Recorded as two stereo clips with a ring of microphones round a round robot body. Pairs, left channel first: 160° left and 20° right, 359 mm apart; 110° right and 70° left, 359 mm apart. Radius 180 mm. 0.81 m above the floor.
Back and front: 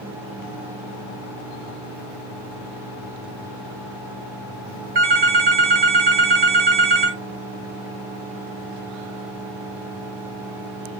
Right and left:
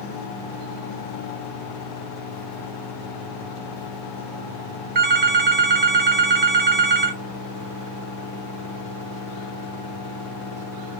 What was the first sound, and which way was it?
A phone ringing, 5° left.